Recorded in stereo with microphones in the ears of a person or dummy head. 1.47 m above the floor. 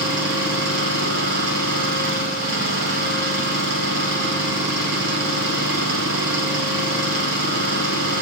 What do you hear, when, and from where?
0.0 s an engine running: 60° right (ahead or behind), 3.5 m